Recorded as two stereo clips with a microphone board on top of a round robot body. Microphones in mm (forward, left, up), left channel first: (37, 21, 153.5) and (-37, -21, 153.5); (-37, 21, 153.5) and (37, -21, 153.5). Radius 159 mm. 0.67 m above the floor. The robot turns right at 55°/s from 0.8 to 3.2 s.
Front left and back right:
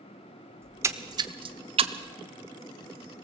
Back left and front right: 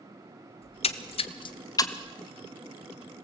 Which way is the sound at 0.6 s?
145° left.